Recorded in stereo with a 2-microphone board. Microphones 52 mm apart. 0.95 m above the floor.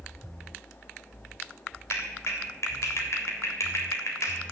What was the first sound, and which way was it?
A clap, 65° left (ahead or behind).